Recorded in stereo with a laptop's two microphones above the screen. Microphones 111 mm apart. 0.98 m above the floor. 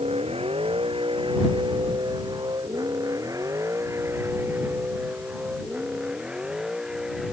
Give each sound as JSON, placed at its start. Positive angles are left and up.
{"t": 0.0, "sound": "a vehicle", "side_deg": -70}